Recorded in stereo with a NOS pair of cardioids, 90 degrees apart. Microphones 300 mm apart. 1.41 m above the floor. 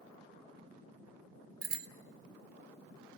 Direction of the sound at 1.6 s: 60° right.